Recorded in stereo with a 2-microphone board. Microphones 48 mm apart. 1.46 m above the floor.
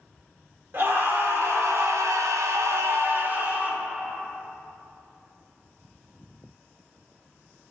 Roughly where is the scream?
Right.